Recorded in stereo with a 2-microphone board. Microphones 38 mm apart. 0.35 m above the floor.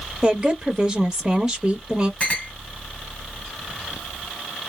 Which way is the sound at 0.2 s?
20° right (ahead or behind).